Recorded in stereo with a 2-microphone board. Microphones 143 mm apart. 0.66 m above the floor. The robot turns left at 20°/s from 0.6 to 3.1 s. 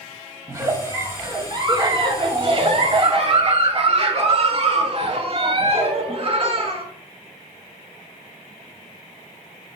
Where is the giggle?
30° right, 0.5 m; by 6.8 s 80° right, 0.5 m.